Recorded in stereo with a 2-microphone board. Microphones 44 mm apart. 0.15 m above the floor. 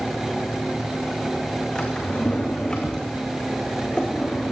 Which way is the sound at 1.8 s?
20° left (ahead or behind).